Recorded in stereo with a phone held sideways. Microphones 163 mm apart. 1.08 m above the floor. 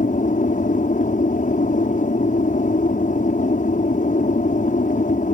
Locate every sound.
0.0 s an aircraft: 55° left (ahead or behind)